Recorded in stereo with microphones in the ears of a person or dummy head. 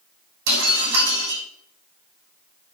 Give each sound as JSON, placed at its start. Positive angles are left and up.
{"t": 0.5, "sound": "breaking glass", "side_deg": -65, "distance_m": 5.0}